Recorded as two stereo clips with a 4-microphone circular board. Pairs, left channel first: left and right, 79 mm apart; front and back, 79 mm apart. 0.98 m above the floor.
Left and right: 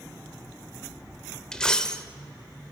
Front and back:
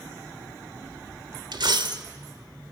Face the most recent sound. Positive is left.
turn(degrees=170)